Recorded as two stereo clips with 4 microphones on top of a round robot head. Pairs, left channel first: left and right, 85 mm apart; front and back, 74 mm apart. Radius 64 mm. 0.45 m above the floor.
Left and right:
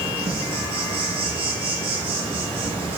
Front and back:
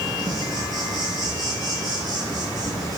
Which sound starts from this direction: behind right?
An insect, at 0.0 s.